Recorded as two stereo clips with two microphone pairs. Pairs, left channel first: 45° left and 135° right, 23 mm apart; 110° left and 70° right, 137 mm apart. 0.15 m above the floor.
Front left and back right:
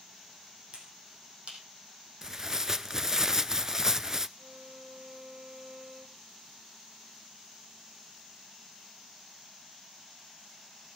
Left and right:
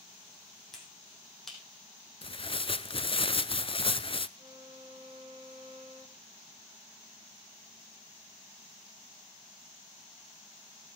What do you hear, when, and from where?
0.7 s a finger snap: 160° right, 5 m
2.2 s tearing paper: 155° left, 0.5 m
4.4 s a violin: 115° right, 4 m